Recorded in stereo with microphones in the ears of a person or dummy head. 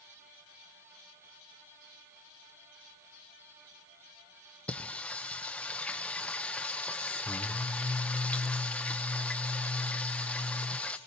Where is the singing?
10° left (ahead or behind), 0.7 m.